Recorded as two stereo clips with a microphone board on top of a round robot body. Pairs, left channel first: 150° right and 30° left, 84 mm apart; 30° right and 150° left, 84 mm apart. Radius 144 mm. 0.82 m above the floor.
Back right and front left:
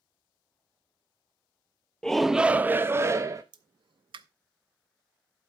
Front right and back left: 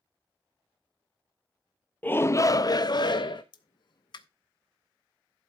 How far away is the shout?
About 0.6 m.